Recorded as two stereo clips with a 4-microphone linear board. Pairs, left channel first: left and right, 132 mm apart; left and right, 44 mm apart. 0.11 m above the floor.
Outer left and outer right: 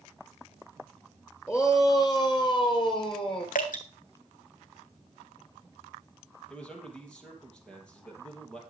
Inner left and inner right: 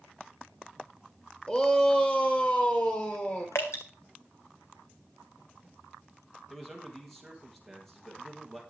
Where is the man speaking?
5° left (ahead or behind), 3.5 m.